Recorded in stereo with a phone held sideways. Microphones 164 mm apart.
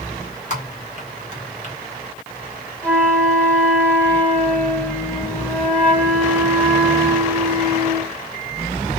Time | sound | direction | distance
0.5 | typing on a keyboard | 50° left (ahead or behind) | 1.4 m
2.8 | a flute | 10° left (ahead or behind) | 0.7 m